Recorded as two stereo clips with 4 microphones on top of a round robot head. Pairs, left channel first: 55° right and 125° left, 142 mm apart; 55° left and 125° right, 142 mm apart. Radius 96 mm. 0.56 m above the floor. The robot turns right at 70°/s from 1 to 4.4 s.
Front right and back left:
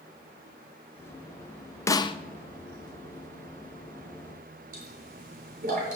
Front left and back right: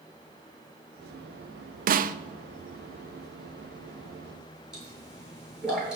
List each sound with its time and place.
1.9 s a snare drum: 125° right, 0.7 m; by 2.2 s 105° right, 0.7 m
4.7 s a pop: 150° left, 6.5 m